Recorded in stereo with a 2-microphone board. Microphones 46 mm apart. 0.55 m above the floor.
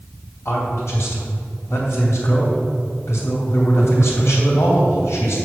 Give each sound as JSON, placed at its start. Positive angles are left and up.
{"t": 0.5, "sound": "a man speaking", "side_deg": 75, "distance_m": 3.0}